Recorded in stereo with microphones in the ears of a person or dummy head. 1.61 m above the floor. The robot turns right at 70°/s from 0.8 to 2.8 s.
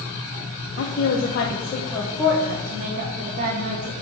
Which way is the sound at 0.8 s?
80° left.